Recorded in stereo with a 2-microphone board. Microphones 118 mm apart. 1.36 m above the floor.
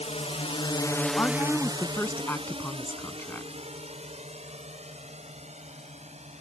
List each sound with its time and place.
0.0 s a drone: 70° left (ahead or behind); by 6.4 s 70° right (ahead or behind)
1.2 s a woman speaking: 20° left (ahead or behind)